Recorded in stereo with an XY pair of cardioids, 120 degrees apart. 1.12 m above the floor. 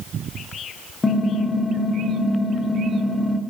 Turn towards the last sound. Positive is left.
turn(degrees=20)